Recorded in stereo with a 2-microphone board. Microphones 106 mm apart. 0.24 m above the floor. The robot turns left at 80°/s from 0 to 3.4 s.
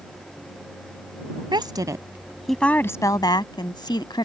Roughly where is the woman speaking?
Right.